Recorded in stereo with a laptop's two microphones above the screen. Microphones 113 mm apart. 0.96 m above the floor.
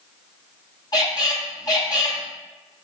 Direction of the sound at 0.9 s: 35° left (ahead or behind).